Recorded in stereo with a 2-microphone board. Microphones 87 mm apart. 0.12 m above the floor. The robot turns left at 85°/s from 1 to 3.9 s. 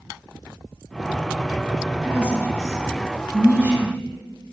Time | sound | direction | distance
2.0 | a woman speaking | 10° right (ahead or behind) | 1.4 m